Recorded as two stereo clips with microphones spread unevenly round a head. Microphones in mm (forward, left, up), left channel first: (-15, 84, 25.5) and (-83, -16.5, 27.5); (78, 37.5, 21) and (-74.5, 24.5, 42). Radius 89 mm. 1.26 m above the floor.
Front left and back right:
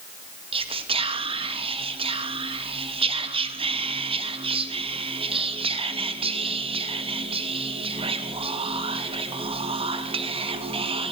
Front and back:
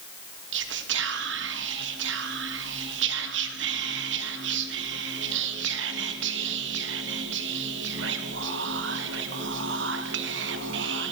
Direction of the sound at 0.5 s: 165° right.